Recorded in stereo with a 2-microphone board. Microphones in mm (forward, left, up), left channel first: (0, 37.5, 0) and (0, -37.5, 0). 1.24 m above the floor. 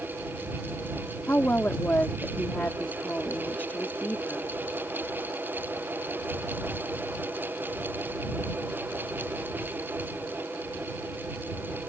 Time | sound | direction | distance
1.3 | a woman speaking | 20° left (ahead or behind) | ?